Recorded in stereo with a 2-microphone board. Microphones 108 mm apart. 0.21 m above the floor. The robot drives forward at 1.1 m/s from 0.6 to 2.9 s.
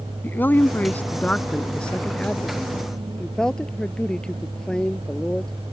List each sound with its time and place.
0.2 s a man speaking: 20° left (ahead or behind); by 5.5 s 10° left (ahead or behind)